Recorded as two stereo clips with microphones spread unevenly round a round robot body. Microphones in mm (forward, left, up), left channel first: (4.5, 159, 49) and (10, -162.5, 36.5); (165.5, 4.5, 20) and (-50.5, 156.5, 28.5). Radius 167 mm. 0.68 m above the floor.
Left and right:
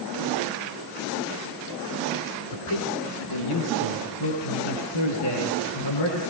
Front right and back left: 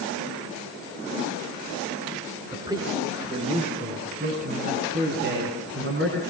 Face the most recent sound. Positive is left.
turn(degrees=105)